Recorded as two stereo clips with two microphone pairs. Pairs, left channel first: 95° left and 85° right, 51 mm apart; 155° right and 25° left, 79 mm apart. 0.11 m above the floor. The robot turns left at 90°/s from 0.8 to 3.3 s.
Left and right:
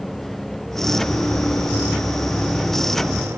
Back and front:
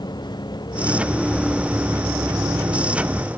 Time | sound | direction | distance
0.0 | a vehicle | straight behind | ?